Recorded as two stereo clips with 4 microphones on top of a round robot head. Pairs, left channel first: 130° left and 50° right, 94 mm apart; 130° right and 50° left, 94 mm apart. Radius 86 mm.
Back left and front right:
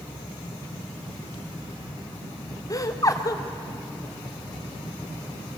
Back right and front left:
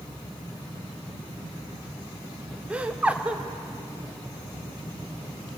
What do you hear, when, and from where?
2.7 s laughter: 115° left, 1.6 m